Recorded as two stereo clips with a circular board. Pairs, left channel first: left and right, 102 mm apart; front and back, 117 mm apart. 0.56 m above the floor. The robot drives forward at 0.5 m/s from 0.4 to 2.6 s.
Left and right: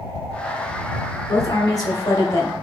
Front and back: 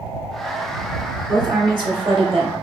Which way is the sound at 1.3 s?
130° left.